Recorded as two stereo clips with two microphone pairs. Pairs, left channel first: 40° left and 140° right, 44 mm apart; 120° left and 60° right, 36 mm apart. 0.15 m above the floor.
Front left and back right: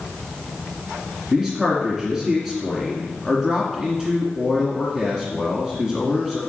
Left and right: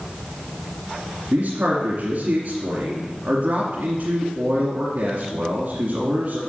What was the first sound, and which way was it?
A man speaking, 45° right.